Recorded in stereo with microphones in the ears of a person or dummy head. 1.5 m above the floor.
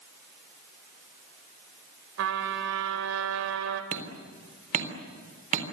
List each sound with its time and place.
2.2 s a trumpet: 75° right (ahead or behind), 3 m
3.9 s hammering: 45° right (ahead or behind), 3.5 m